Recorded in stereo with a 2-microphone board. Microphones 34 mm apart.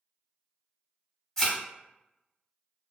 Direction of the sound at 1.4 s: 15° left (ahead or behind).